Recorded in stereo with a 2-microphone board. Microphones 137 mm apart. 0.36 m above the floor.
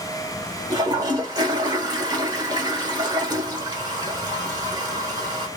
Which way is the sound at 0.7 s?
30° right (ahead or behind).